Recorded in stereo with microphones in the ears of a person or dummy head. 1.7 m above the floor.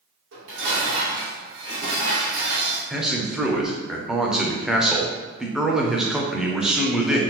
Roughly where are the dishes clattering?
Right.